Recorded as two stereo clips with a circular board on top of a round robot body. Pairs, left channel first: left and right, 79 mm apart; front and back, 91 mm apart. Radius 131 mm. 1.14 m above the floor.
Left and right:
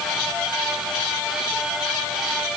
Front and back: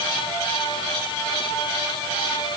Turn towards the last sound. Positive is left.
No sound to turn to.